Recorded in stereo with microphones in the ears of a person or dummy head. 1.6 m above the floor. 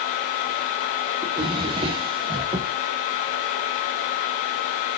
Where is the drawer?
20° right (ahead or behind), 0.7 m.